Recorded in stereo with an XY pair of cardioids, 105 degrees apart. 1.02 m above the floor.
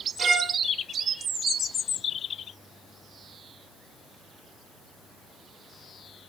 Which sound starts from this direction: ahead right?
A violin, at 0.2 s.